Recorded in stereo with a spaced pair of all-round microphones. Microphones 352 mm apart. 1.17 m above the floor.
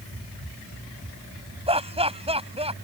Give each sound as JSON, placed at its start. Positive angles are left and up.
{"t": 1.7, "sound": "laughter", "side_deg": -15}